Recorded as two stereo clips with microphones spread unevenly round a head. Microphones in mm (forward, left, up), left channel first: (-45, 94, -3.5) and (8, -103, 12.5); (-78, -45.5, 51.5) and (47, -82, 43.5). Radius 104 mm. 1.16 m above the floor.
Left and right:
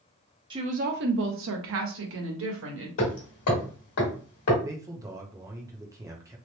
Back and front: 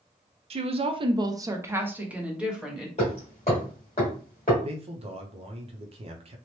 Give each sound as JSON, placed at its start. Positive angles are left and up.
{"t": 0.5, "sound": "a woman speaking", "azimuth_deg": -10, "distance_m": 0.6}
{"t": 3.0, "sound": "hammering", "azimuth_deg": 115, "distance_m": 1.4}
{"t": 4.6, "sound": "a man speaking", "azimuth_deg": 0, "distance_m": 0.6}